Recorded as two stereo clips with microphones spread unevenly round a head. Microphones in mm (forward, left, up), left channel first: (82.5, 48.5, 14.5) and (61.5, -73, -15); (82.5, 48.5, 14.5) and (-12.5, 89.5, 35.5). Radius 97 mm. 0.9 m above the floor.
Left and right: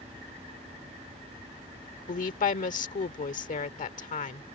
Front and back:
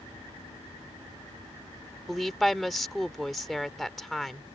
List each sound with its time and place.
2.1 s a woman speaking: 65° left